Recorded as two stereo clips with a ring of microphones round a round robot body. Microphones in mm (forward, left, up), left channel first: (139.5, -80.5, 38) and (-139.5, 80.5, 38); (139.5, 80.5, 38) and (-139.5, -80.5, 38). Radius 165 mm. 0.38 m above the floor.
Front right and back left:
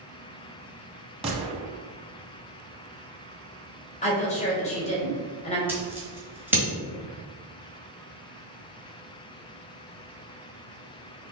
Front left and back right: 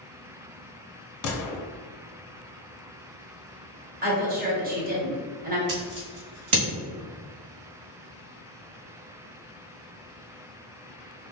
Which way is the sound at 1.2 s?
75° left.